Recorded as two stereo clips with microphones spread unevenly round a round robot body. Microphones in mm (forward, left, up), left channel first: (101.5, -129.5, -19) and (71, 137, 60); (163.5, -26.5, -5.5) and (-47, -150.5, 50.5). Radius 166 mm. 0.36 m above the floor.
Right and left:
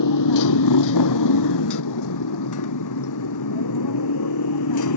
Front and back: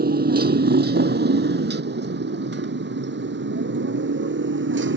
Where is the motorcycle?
100° right; by 5.0 s 110° right.